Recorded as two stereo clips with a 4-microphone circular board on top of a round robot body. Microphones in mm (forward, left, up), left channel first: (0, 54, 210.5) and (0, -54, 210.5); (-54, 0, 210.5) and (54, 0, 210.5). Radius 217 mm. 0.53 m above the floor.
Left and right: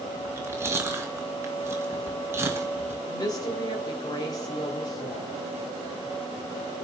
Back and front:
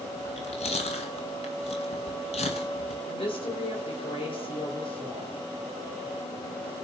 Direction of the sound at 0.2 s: 155° right.